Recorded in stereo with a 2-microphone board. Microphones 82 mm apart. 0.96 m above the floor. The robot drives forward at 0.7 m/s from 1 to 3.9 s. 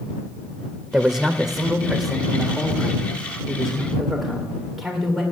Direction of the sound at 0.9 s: 10° right (ahead or behind).